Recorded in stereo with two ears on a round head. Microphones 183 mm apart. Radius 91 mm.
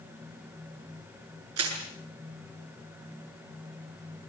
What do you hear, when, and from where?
1.6 s crushing: 85° right, 7.5 m